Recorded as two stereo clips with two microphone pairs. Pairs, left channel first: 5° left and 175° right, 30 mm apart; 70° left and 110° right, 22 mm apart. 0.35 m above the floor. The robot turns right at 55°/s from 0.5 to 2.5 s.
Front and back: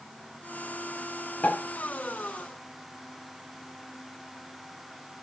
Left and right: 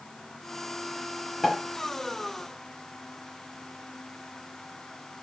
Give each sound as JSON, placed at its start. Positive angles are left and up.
{"t": 1.4, "sound": "a pop", "azimuth_deg": -25, "distance_m": 7.0}